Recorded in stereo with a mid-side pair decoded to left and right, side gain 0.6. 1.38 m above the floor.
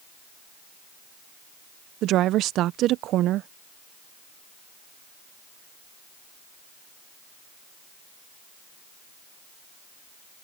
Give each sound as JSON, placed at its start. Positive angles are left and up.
{"t": 2.0, "sound": "a woman speaking", "azimuth_deg": -60}